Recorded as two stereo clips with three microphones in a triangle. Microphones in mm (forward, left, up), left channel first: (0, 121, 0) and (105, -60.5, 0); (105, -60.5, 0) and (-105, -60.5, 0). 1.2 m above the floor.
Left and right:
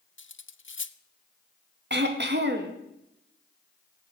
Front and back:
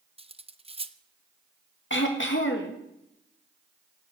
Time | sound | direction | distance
0.2 | cutlery clinking | 125° left | 0.6 m
1.9 | throat clearing | 25° right | 1.8 m